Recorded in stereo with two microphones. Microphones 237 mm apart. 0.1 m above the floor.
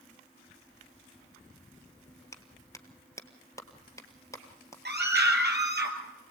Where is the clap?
15° left (ahead or behind), 1.5 m.